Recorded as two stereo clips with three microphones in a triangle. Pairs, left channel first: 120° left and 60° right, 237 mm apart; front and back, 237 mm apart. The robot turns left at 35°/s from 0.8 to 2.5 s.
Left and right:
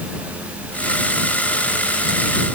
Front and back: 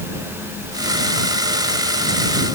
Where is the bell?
No bell in this recording.